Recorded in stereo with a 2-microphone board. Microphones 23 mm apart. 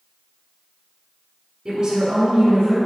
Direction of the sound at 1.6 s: 15° right (ahead or behind).